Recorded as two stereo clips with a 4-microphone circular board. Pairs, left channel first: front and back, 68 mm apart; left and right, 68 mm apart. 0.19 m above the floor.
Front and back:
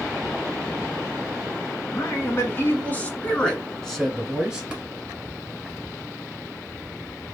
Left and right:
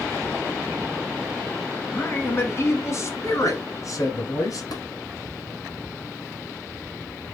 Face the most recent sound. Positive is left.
turn(degrees=100)